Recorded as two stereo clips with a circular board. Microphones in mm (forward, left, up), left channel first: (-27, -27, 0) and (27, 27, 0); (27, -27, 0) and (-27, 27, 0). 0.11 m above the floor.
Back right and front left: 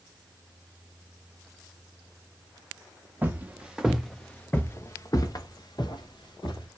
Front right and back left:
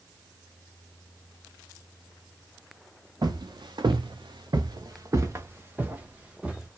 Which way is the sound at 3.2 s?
110° left.